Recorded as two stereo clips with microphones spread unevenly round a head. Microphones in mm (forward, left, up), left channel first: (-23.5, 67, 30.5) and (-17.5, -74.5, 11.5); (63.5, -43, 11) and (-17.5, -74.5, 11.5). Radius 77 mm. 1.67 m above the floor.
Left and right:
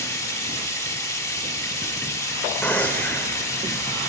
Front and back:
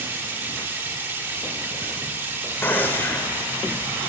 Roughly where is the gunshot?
Ahead left.